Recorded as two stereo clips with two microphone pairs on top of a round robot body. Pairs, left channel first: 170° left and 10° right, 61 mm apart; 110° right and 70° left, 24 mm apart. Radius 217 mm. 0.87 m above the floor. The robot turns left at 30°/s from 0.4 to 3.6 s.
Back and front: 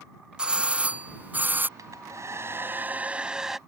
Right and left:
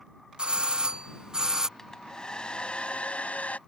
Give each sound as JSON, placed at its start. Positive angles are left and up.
{"t": 0.4, "sound": "a doorbell", "azimuth_deg": 50}
{"t": 1.8, "sound": "a hair dryer", "azimuth_deg": -40}